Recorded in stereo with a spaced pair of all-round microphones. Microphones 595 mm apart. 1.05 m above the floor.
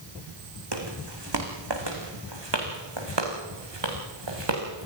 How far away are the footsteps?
About 4.5 m.